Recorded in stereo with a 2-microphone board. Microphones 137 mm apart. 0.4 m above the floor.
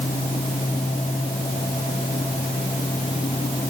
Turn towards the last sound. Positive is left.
No sound to turn to.